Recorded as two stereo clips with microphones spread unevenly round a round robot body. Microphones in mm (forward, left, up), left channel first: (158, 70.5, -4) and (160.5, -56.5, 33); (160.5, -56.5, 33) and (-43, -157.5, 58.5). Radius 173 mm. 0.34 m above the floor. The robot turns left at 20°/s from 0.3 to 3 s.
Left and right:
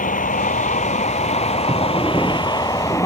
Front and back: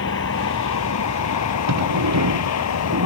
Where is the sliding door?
165° right; by 3.1 s 165° left.